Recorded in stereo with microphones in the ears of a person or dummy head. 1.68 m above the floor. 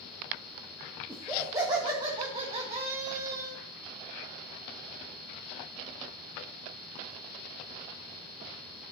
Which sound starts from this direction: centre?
Laughter, at 1.1 s.